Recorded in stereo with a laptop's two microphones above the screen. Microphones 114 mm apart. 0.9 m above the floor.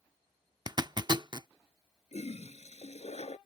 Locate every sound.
0.7 s a zipper: 40° right (ahead or behind)
2.1 s a toilet flushing: 75° left (ahead or behind)